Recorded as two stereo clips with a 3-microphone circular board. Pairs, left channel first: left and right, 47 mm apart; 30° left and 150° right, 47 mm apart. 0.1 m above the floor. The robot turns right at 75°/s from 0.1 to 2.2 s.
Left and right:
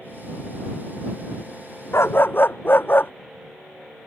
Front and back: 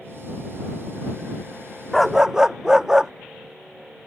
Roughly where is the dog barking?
Behind left.